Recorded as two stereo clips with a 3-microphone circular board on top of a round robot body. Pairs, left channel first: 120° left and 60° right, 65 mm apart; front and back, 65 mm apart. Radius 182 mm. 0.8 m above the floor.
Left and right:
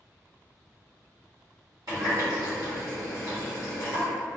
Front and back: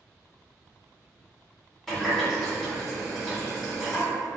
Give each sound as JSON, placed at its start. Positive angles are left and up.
{"t": 1.9, "sound": "a running tap", "azimuth_deg": -90, "distance_m": 1.5}